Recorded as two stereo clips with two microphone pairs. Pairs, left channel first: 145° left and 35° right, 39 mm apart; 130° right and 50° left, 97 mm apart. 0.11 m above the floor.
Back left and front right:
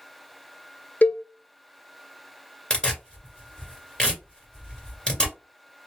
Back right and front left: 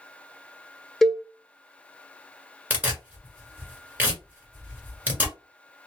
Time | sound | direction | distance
1.0 | a cowbell | 135° left | 0.6 m
2.7 | tearing paper | 100° left | 1.6 m